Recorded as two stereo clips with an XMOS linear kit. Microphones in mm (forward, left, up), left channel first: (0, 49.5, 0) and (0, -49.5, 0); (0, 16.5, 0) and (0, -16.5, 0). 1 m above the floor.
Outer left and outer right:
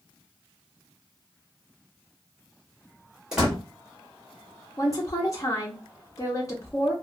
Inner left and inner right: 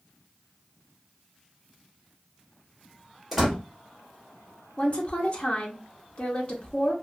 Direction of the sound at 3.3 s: 5° right (ahead or behind).